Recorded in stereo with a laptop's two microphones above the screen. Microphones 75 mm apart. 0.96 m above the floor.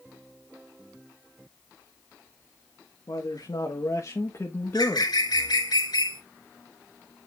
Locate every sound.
3.1 s a man speaking: 60° left (ahead or behind), 1.4 m; by 5.1 s 20° left (ahead or behind), 1.3 m
4.6 s a bird: 65° left (ahead or behind), 2.5 m